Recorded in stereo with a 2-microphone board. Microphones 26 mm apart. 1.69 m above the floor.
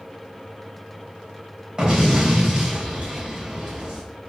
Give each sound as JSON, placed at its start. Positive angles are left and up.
{"t": 1.8, "sound": "an explosion", "side_deg": -30, "distance_m": 3.0}